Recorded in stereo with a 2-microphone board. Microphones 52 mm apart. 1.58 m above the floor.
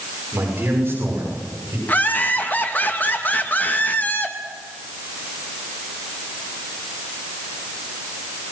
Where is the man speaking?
40° right (ahead or behind), 6.5 m; by 1.8 s 50° right (ahead or behind), 8 m.